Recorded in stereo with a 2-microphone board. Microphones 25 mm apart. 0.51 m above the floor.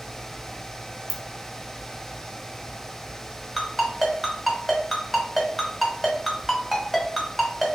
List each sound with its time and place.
1.1 s a ringtone: centre (ahead or behind), 0.6 m
3.6 s a ringtone: 5° left (ahead or behind), 0.9 m